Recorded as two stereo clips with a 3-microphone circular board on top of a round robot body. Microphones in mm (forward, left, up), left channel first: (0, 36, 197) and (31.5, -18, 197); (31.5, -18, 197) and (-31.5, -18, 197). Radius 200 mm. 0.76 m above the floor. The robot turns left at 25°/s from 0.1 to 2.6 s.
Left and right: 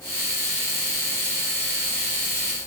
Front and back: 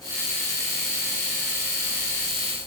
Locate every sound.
Only background noise.